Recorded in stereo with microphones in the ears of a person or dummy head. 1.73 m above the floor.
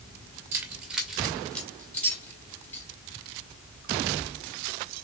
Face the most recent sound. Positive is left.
turn(degrees=15)  # may be behind; listen again after turning